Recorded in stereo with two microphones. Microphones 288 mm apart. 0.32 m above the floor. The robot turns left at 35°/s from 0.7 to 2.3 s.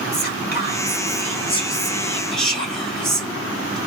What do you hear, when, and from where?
0.1 s whispering: 60° left, 1.5 m; by 3.8 s straight ahead, 1.5 m